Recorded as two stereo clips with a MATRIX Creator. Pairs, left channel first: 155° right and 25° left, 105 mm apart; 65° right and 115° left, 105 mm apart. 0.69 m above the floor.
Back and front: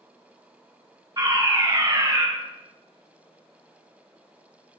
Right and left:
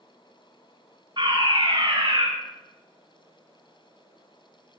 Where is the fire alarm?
70° left, 9 m.